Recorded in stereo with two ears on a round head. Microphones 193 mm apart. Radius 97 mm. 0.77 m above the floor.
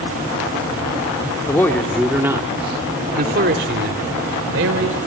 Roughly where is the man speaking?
Centre.